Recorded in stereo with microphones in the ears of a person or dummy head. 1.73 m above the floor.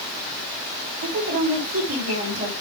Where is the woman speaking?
30° right (ahead or behind), 5 m.